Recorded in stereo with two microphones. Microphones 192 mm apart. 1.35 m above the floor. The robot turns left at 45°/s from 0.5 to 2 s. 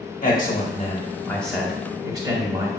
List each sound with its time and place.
0.2 s a man speaking: 45° left, 1.2 m; by 2.7 s 20° right, 1.2 m